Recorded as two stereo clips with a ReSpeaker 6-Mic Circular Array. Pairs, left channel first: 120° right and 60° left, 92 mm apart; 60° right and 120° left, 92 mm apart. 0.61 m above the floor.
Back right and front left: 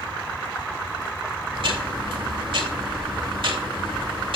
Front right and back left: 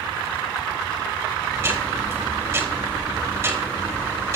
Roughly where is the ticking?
Ahead left.